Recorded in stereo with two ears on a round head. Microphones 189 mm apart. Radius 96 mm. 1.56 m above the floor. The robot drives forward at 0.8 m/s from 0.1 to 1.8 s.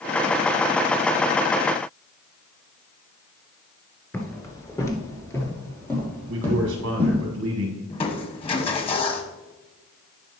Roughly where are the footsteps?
Centre.